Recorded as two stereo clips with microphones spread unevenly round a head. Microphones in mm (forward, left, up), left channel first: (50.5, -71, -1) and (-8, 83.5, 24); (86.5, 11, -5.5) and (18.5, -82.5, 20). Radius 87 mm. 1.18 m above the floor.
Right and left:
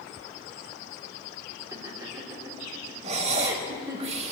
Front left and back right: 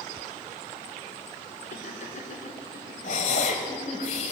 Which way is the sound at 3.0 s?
85° left.